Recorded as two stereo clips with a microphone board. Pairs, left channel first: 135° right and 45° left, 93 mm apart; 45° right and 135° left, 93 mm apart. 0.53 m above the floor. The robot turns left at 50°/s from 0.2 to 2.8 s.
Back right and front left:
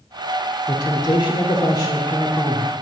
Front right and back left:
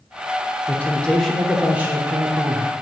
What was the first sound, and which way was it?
A man speaking, 100° right.